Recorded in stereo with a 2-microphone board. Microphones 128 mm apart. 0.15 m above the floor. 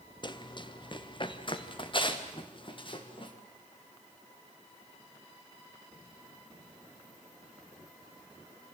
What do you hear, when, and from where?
0.2 s running footsteps: 35° left (ahead or behind), 1.3 m; by 3.3 s 40° left (ahead or behind), 4.5 m